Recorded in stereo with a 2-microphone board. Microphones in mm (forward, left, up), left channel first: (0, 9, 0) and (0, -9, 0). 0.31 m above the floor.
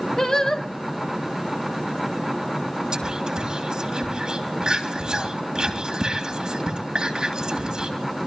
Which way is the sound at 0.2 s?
35° left (ahead or behind).